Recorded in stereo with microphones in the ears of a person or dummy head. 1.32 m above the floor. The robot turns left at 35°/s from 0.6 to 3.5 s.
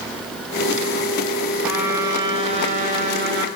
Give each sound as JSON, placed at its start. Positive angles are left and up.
{"t": 1.6, "sound": "a trumpet", "azimuth_deg": -5, "distance_m": 1.3}